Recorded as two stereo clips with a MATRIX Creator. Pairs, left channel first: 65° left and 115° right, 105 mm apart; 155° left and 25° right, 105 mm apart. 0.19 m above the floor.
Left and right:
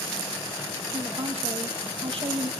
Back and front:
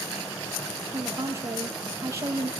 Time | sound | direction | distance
0.9 | a woman speaking | 85° right | 5.5 m